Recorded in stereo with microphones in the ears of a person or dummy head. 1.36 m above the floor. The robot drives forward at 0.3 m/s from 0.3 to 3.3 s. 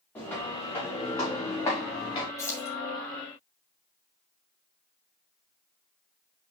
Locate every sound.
0.1 s footsteps: 15° left (ahead or behind), 6 m; by 2.3 s 25° left (ahead or behind), 5 m
2.4 s keys jangling: 15° left (ahead or behind), 3 m